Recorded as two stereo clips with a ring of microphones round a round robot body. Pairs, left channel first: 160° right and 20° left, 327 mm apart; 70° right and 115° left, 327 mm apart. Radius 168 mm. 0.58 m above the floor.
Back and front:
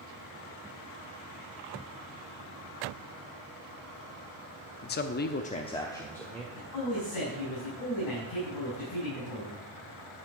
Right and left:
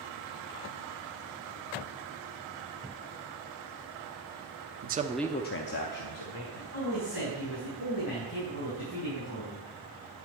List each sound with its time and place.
4.8 s a man speaking: 155° left, 0.8 m; by 6.4 s 70° right, 1.6 m
6.5 s a man speaking: 130° right, 5 m